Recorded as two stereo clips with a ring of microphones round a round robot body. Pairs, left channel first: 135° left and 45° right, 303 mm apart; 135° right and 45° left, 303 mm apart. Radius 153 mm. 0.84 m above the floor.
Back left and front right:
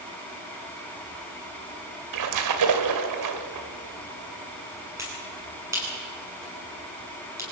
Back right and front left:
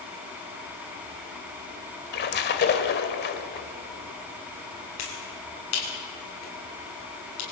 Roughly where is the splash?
Right.